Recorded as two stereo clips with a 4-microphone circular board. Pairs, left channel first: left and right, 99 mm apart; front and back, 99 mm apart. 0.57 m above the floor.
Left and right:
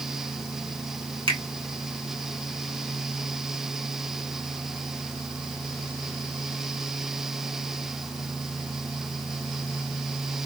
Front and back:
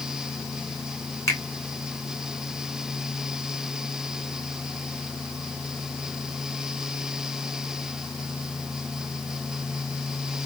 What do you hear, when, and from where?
1.3 s a finger snap: 60° right, 2.0 m